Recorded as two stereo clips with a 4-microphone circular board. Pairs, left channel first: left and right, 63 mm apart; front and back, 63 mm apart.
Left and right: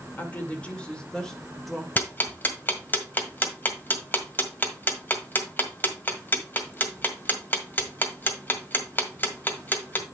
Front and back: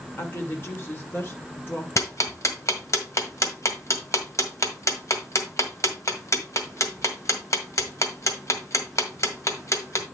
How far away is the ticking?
About 1.7 m.